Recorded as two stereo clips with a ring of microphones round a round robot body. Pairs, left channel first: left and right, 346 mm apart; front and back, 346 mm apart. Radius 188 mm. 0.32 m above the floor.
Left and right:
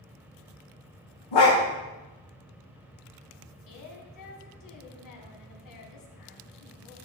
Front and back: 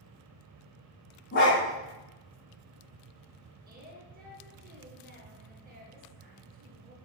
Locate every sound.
1.3 s a dog barking: 60° left, 5.5 m
3.7 s a woman speaking: 115° left, 2.5 m